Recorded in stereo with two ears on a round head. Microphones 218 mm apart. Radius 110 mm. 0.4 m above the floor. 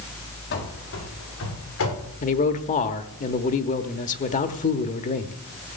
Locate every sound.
0.5 s running footsteps: 45° left (ahead or behind), 5 m; by 2.1 s 60° left (ahead or behind), 7 m
2.2 s a man speaking: 30° left (ahead or behind), 0.9 m